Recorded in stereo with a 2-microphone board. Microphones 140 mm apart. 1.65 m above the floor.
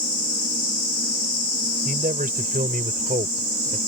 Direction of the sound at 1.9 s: 85° right.